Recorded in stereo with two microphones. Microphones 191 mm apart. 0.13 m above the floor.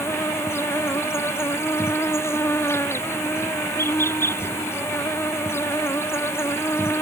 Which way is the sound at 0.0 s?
15° left (ahead or behind).